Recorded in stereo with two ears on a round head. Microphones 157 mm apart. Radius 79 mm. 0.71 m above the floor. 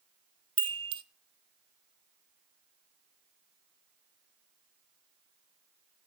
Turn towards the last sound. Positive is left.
turn(degrees=-30)  # may be behind; listen again after turning